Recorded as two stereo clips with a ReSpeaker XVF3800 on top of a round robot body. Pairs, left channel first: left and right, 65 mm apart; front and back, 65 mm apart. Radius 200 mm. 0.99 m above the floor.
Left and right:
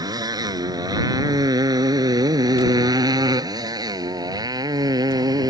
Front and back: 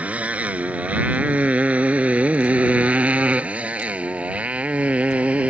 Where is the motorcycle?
110° right.